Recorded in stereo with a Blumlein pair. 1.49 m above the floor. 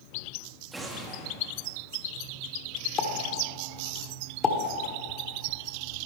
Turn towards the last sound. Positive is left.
turn(degrees=25)